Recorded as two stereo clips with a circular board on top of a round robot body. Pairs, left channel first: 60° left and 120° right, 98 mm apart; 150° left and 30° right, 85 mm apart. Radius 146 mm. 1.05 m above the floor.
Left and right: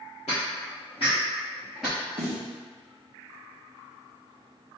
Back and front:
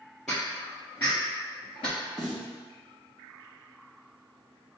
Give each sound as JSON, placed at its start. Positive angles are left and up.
{"t": 0.3, "sound": "footsteps", "azimuth_deg": 65, "distance_m": 1.8}
{"t": 2.2, "sound": "a snare drum", "azimuth_deg": -115, "distance_m": 0.8}